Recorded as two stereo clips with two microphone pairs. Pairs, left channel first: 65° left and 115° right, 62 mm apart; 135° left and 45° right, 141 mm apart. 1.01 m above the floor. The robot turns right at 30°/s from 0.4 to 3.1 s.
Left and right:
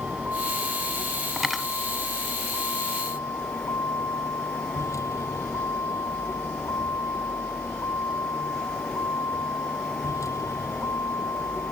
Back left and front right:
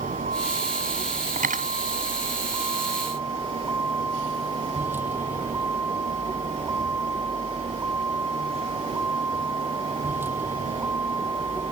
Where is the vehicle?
50° right; by 11.7 s 30° left.